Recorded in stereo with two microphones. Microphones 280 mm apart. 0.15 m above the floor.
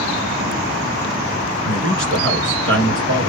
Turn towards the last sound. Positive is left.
turn(degrees=-45)  # may be behind; listen again after turning